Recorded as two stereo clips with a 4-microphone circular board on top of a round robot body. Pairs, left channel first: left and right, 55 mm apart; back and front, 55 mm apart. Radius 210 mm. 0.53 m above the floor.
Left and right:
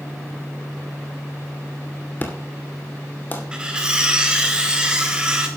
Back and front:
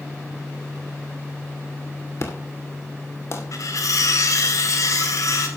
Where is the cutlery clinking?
165° right, 2.5 m.